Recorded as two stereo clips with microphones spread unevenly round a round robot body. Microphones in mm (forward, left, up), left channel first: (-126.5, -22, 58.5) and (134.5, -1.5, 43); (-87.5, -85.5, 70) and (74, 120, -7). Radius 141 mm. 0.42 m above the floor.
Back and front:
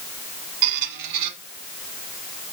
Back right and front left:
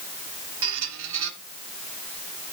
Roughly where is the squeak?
Ahead.